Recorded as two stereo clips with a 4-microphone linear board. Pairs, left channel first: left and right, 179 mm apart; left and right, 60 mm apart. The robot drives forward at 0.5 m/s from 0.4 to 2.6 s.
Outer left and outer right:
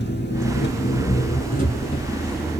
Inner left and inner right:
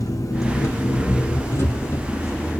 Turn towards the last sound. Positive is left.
turn(degrees=35)  # may be behind; listen again after turning